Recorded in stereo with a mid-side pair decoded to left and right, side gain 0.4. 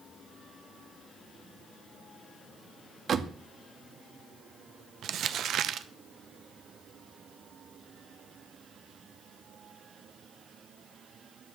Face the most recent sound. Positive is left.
turn(degrees=-70)